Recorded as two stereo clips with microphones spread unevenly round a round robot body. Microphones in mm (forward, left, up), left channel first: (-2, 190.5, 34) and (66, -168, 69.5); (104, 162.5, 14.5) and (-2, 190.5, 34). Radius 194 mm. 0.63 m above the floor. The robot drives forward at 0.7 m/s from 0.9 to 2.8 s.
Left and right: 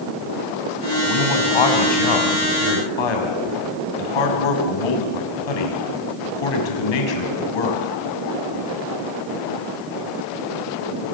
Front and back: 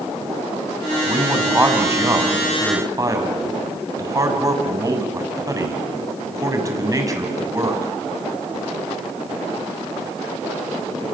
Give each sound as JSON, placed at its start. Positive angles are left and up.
{"t": 1.1, "sound": "a man speaking", "azimuth_deg": 90, "distance_m": 6.0}